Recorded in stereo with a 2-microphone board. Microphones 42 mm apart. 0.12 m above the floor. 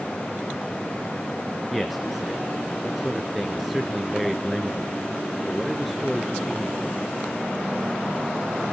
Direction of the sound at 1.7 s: Centre (ahead or behind).